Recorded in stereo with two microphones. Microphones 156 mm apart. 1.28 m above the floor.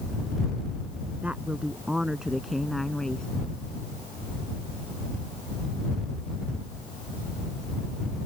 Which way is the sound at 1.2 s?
10° right (ahead or behind).